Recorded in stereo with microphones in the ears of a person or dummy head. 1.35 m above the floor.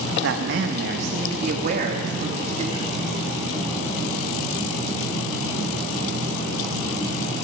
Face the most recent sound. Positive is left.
turn(degrees=-40)  # may be behind; listen again after turning